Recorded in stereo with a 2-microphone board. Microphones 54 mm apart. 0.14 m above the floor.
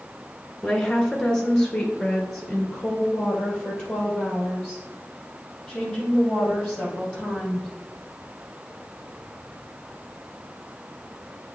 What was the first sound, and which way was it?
A woman speaking, 10° left (ahead or behind).